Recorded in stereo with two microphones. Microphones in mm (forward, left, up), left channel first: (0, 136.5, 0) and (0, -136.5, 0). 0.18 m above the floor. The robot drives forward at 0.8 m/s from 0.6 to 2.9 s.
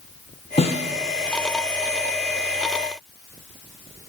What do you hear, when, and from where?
0.6 s a snare drum: 20° left (ahead or behind), 1.1 m; by 0.9 s 25° left (ahead or behind), 0.9 m